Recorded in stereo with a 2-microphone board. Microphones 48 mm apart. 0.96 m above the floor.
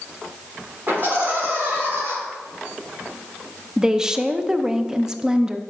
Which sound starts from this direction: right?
Laughter, at 0.9 s.